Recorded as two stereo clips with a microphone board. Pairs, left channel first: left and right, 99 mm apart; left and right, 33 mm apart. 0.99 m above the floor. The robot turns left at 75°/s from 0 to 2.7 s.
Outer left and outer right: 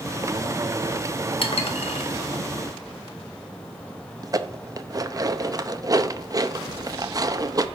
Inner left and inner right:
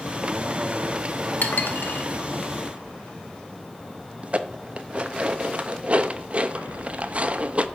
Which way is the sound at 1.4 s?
60° left (ahead or behind).